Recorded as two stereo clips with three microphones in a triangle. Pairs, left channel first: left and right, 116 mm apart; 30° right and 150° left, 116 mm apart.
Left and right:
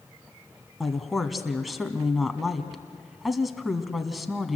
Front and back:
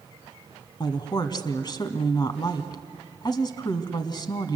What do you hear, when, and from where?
0.8 s a woman speaking: straight ahead, 1.4 m